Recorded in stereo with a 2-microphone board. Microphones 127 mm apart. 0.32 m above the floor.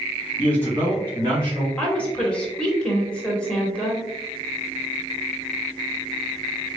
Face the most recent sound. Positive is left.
turn(degrees=10)  # may be behind; listen again after turning